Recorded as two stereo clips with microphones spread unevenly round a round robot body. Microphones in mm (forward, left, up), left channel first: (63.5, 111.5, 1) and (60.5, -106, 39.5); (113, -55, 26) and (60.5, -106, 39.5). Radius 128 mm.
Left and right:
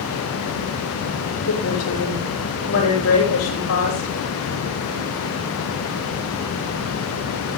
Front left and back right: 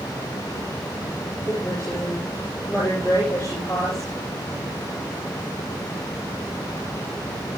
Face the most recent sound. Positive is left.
turn(degrees=115)